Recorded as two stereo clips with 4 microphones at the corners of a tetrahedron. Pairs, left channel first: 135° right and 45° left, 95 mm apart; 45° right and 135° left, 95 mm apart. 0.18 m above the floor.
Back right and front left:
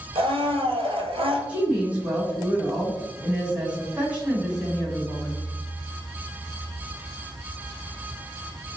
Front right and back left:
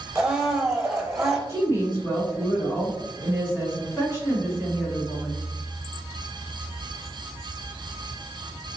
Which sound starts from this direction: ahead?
A woman speaking, at 1.5 s.